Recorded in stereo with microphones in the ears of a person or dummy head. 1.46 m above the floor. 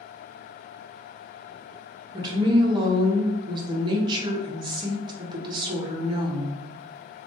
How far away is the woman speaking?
About 0.6 m.